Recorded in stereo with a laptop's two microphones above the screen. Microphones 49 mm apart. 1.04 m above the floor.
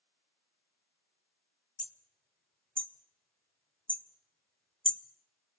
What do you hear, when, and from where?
1.8 s hammering: 25° left (ahead or behind), 1.2 m